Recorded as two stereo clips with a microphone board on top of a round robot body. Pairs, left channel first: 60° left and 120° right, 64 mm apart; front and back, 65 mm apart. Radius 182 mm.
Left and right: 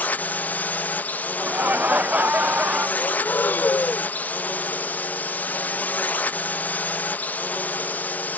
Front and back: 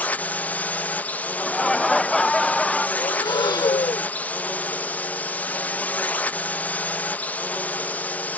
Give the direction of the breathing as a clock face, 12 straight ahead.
12 o'clock.